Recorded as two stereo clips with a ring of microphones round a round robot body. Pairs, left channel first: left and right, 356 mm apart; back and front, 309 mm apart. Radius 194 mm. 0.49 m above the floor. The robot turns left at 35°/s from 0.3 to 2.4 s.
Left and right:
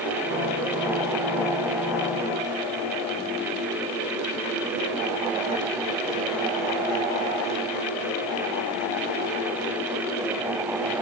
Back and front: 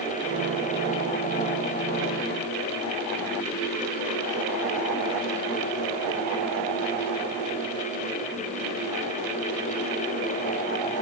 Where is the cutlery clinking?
No cutlery clinking in this recording.